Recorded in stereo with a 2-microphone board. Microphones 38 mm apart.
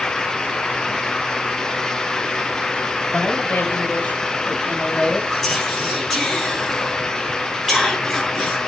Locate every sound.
3.1 s a woman speaking: 65° left (ahead or behind), 3.5 m; by 5.2 s 25° left (ahead or behind), 4 m
5.3 s whispering: 10° left (ahead or behind), 5.5 m